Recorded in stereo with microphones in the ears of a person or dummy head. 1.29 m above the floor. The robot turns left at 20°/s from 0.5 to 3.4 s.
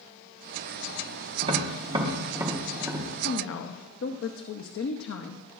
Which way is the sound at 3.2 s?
70° left (ahead or behind).